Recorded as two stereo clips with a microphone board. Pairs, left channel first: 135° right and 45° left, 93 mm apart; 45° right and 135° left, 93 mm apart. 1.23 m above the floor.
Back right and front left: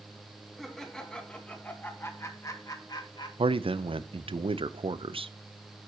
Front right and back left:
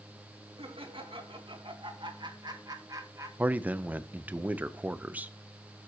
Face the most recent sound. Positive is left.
turn(degrees=60)